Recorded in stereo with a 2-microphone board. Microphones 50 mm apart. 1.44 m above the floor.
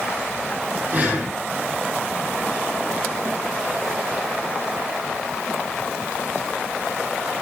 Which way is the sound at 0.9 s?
35° right (ahead or behind).